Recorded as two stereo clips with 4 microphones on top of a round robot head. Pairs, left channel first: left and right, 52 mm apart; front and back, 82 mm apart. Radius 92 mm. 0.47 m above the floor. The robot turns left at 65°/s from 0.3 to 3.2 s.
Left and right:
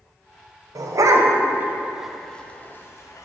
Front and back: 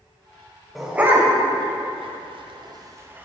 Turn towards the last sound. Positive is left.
turn(degrees=110)